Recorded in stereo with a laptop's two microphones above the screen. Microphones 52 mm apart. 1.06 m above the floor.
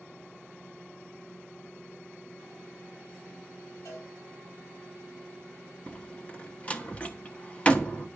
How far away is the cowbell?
About 7 m.